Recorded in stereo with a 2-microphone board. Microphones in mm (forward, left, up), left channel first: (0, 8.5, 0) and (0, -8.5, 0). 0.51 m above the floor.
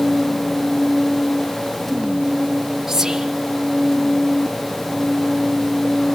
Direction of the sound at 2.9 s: 20° right (ahead or behind).